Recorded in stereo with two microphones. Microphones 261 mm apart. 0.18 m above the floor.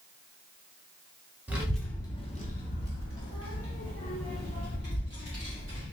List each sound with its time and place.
1.5 s a child speaking: 10° right (ahead or behind), 1.2 m; by 5.8 s 70° left (ahead or behind), 3 m